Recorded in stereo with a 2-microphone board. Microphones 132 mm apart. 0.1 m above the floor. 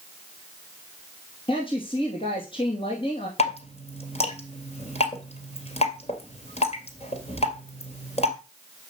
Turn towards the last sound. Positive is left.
turn(degrees=55)  # may be behind; listen again after turning